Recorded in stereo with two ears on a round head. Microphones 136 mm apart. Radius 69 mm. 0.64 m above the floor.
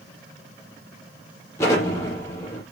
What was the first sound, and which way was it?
An explosion, 20° left (ahead or behind).